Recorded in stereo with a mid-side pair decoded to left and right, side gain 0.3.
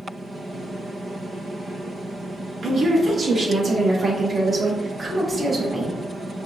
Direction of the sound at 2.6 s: 65° right.